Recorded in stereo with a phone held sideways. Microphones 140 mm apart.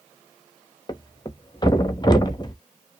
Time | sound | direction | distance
0.9 | a thud | 30° left (ahead or behind) | 0.8 m